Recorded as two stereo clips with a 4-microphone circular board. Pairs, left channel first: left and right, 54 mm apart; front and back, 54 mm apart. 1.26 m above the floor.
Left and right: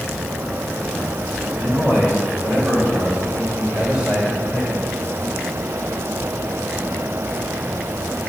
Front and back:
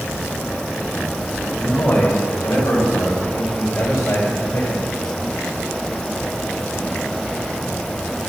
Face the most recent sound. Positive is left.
turn(degrees=-20)